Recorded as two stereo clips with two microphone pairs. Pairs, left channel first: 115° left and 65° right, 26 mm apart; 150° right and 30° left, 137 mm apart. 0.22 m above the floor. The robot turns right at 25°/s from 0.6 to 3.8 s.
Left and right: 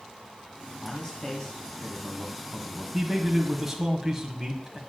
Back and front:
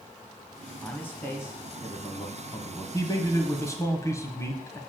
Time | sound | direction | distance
0.8 | a man speaking | 140° left | 1.4 m
2.9 | a man speaking | 145° right | 1.3 m